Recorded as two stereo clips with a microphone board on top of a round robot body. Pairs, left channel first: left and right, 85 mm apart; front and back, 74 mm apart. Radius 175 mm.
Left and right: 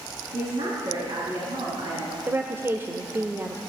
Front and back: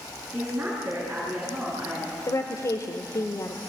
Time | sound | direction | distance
0.3 | a woman speaking | 105° right | 6.5 m
2.3 | a woman speaking | 30° right | 1.5 m